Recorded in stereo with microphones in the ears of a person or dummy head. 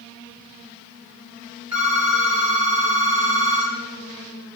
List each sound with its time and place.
1.7 s a phone ringing: 5° right (ahead or behind), 0.6 m